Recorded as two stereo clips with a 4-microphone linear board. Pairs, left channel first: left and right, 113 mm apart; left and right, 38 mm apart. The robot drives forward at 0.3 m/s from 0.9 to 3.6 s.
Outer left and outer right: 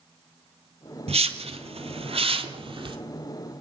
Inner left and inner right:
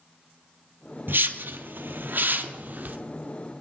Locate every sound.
1.1 s a whoosh: 70° right (ahead or behind), 0.7 m; by 3.0 s 50° right (ahead or behind), 0.8 m